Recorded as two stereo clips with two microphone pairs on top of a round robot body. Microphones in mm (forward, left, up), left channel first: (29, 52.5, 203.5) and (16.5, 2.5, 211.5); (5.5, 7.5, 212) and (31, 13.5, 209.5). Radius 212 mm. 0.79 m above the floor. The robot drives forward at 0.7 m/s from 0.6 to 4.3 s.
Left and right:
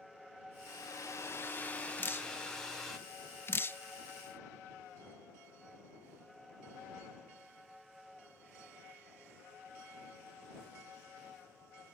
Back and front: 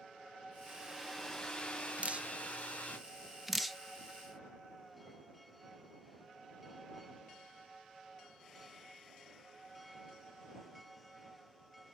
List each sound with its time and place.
0.7 s a hair dryer: 70° left, 0.6 m; by 3.0 s 160° left, 1.6 m
2.0 s dripping: 35° left, 1.4 m; by 3.8 s 105° left, 1.0 m